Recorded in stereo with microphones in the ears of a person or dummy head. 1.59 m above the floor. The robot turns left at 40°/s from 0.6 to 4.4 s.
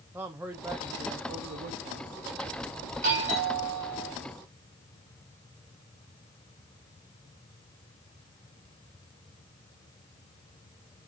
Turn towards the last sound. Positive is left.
turn(degrees=180)